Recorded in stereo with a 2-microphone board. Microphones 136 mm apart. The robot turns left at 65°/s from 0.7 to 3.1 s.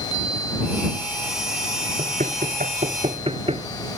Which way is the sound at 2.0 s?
60° right (ahead or behind).